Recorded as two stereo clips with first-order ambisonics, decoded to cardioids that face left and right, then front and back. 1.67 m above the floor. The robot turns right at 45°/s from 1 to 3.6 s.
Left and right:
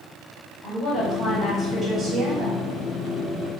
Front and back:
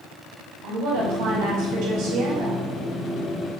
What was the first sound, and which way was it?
A woman speaking, 160° left.